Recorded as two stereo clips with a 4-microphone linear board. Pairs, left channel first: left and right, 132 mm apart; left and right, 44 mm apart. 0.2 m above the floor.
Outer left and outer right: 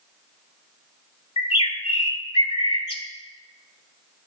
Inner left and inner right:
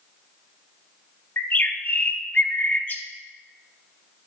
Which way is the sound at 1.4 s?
45° left (ahead or behind).